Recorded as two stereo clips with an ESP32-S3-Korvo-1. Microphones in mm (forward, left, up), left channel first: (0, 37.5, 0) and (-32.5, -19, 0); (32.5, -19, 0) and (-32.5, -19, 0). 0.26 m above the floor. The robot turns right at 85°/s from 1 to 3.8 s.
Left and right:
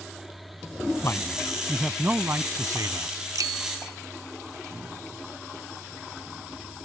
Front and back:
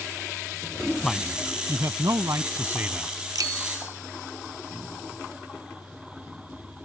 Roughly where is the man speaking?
Left.